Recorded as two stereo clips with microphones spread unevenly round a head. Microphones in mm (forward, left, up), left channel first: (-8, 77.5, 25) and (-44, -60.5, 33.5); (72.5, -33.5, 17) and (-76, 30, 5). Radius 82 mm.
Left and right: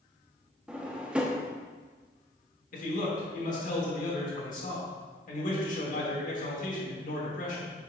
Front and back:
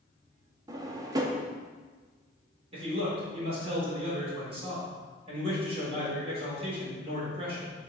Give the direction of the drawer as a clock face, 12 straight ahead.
6 o'clock.